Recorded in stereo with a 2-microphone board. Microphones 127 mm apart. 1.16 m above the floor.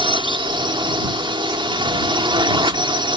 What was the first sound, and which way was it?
A drone, 40° right (ahead or behind).